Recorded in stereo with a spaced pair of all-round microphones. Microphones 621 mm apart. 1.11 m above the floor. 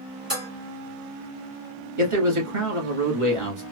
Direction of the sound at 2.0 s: 50° right (ahead or behind).